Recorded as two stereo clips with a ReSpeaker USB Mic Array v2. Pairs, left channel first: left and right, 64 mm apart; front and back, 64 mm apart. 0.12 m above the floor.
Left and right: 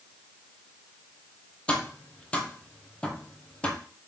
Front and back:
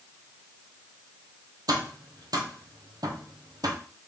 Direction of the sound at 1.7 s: 165° left.